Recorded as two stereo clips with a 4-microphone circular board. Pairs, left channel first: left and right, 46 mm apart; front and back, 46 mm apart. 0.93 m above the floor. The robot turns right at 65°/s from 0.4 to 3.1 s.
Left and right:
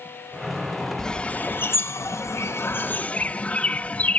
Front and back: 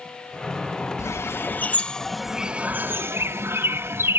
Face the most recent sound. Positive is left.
turn(degrees=145)